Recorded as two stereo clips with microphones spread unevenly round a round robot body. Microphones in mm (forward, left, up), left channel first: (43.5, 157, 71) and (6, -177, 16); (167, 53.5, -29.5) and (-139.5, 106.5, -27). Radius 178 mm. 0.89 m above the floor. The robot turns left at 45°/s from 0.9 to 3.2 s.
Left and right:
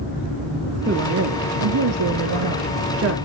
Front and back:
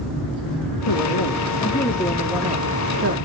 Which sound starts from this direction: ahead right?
A woman speaking, at 0.9 s.